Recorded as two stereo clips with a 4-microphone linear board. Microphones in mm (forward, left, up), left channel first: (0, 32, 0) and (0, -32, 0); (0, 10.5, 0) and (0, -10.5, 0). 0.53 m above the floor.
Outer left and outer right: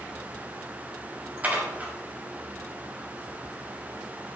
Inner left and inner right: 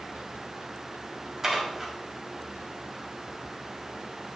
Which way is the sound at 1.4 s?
25° right (ahead or behind).